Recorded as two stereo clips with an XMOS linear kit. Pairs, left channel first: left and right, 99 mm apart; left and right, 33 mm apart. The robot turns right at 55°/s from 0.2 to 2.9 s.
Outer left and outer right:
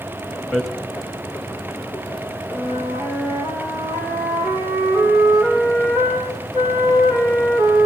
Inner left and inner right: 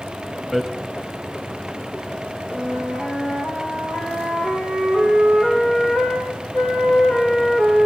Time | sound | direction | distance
0.5 | hammering | 5° left (ahead or behind) | 2.5 m
2.5 | a flute | 10° right (ahead or behind) | 6.5 m